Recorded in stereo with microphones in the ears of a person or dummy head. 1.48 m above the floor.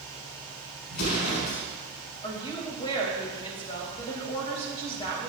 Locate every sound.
0.9 s an explosion: 70° left (ahead or behind), 4.5 m
2.2 s a woman speaking: 30° left (ahead or behind), 2.5 m